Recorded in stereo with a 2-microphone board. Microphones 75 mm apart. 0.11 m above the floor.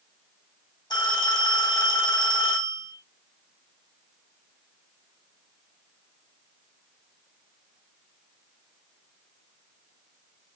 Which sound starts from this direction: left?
A phone ringing, at 0.9 s.